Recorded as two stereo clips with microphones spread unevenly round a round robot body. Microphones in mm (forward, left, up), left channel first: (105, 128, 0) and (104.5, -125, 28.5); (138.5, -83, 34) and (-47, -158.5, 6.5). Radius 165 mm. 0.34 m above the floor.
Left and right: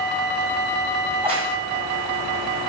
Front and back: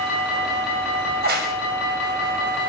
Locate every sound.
1.1 s a crack: 165° right, 1.5 m